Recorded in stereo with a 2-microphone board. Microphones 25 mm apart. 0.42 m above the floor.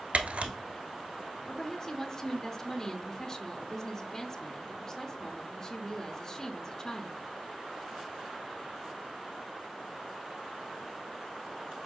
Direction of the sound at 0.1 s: 70° right (ahead or behind).